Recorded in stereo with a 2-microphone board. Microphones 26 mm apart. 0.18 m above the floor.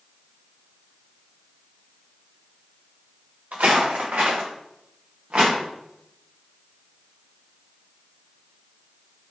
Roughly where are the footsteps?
Right.